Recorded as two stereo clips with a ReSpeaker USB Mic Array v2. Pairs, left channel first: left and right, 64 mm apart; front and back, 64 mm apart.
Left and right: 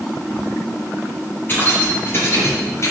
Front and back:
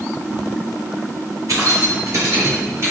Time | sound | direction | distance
1.5 | keys jangling | 150° left | 4 m